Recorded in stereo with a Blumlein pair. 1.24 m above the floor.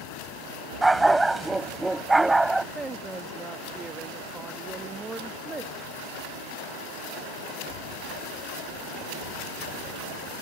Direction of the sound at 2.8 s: 10° right.